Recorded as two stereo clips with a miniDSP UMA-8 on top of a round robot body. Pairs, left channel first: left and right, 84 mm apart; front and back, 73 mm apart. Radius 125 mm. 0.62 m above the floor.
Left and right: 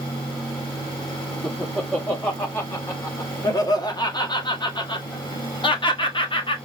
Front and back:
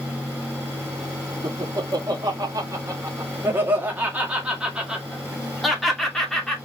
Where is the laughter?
165° left, 1.9 m; by 6.5 s 85° left, 2.5 m.